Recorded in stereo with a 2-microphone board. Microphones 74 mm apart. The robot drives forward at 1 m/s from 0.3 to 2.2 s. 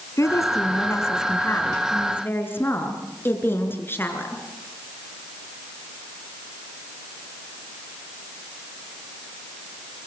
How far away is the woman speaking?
About 3.5 m.